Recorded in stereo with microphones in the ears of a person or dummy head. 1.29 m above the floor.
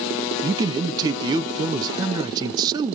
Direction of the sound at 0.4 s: 15° right (ahead or behind).